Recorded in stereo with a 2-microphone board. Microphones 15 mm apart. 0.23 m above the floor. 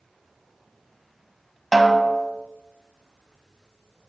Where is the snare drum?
5° left (ahead or behind), 0.8 m.